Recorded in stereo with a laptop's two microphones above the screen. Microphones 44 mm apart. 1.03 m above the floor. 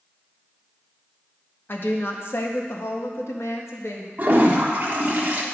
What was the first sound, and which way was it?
A woman speaking, 50° left (ahead or behind).